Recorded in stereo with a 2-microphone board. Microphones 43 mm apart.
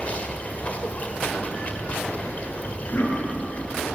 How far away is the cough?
About 8 m.